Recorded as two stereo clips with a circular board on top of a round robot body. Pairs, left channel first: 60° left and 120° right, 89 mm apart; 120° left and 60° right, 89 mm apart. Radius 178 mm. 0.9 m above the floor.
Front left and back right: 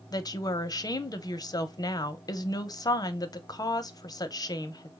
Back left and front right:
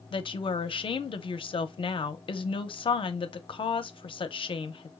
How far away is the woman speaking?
About 0.7 m.